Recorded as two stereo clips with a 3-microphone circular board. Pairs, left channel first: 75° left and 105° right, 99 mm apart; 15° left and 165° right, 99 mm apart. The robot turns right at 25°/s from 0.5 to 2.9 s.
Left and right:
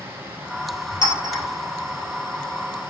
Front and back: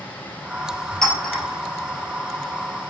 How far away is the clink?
About 1.9 m.